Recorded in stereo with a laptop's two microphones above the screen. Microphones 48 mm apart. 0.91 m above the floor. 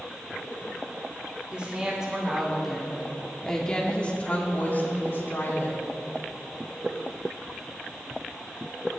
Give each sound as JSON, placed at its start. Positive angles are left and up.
{"t": 1.5, "sound": "a woman speaking", "side_deg": -20, "distance_m": 2.5}